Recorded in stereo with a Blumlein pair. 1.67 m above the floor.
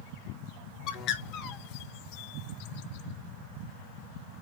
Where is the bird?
35° left, 0.5 m.